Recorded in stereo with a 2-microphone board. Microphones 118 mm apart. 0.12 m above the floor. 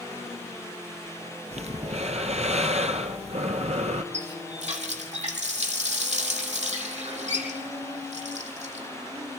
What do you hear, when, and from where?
1.5 s breathing: 70° right (ahead or behind), 1.0 m
4.1 s a running tap: 70° right (ahead or behind), 3 m